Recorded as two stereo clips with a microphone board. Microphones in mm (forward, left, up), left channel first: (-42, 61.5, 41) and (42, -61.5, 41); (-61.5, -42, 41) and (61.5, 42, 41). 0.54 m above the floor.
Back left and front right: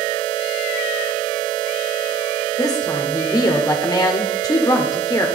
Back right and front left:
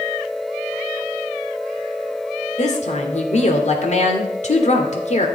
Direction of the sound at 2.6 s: 175° right.